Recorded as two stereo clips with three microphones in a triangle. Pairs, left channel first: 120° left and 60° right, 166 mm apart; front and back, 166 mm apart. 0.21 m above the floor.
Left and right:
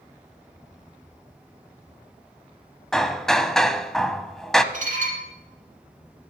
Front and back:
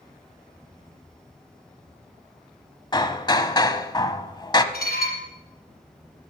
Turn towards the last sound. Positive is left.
turn(degrees=-20)